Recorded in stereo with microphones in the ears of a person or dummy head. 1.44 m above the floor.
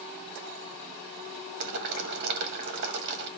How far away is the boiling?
About 2 m.